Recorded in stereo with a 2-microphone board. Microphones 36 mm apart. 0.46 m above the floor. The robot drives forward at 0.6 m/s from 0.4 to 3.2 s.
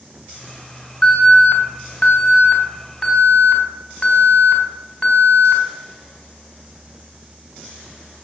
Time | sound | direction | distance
1.0 | an alarm | 30° left (ahead or behind) | 3 m